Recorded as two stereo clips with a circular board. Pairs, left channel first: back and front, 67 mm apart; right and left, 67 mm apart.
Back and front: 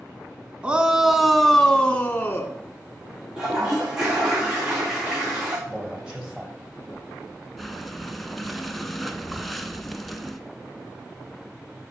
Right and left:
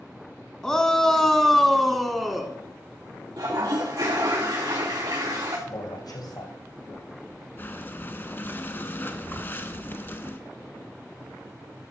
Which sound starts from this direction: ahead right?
A shout, at 0.6 s.